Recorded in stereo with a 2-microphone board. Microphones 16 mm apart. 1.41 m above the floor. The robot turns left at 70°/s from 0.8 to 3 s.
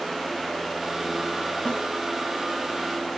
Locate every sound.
1.6 s a snare drum: 85° left, 7.5 m; by 1.8 s 75° left (ahead or behind), 7.5 m